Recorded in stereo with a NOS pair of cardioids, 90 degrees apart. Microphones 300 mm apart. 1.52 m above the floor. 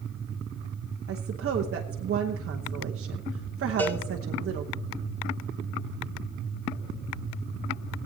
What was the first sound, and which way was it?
A woman speaking, 45° right.